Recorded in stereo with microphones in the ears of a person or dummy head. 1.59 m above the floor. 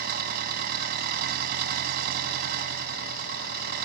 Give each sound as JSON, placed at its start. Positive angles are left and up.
{"t": 0.0, "sound": "an engine running", "side_deg": -55}